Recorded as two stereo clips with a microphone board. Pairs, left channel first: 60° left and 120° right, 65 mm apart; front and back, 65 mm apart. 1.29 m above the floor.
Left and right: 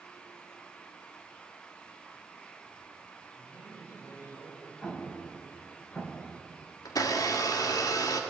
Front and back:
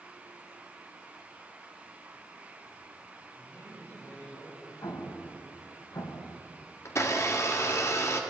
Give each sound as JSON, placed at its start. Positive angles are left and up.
{"t": 3.4, "sound": "a man speaking", "azimuth_deg": 30, "distance_m": 9.0}
{"t": 4.8, "sound": "an explosion", "azimuth_deg": -10, "distance_m": 1.9}
{"t": 6.8, "sound": "a blender", "azimuth_deg": 40, "distance_m": 1.7}